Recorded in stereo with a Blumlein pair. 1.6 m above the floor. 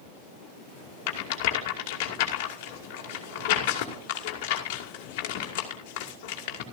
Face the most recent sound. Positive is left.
turn(degrees=45)